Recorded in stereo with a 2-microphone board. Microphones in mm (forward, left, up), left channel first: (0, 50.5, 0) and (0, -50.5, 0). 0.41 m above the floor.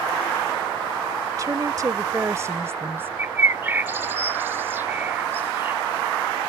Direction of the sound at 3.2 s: 20° right (ahead or behind).